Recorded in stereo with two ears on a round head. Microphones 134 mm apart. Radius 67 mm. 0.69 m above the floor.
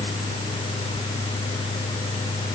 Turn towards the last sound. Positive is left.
No sound to turn to.